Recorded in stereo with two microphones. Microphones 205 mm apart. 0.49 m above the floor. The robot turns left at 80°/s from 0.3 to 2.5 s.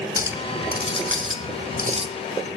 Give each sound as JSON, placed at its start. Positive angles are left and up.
{"t": 0.2, "sound": "a clink", "azimuth_deg": -15, "distance_m": 1.5}